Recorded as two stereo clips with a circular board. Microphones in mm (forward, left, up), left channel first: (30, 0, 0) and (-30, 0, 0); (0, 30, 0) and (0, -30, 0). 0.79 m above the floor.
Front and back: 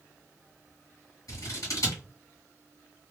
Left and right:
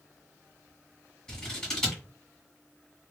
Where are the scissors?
15° left, 1.7 m.